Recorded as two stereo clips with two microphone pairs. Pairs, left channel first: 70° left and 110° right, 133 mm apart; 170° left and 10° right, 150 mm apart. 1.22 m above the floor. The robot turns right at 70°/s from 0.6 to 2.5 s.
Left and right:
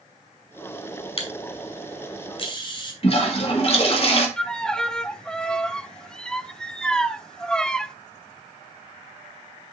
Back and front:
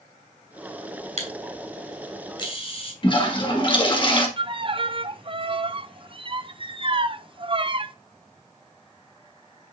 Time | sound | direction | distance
1.2 | a camera shutter | 25° left | 2.5 m
3.0 | a toilet flushing | 115° left | 1.8 m
4.4 | a violin | 15° right | 0.5 m